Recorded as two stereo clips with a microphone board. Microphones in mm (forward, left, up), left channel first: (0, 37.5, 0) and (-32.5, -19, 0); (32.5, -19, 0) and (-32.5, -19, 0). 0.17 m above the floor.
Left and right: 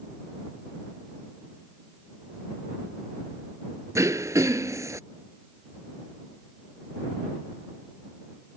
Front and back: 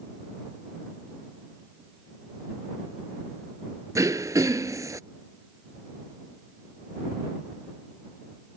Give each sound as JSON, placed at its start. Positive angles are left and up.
{"t": 4.0, "sound": "throat clearing", "azimuth_deg": -155}